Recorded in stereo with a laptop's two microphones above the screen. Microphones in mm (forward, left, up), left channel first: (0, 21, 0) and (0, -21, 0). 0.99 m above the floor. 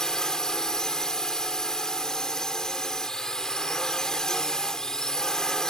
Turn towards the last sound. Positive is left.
turn(degrees=15)  # may be behind; listen again after turning